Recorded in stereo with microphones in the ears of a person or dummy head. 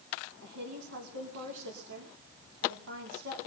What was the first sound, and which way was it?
A woman speaking, 80° right.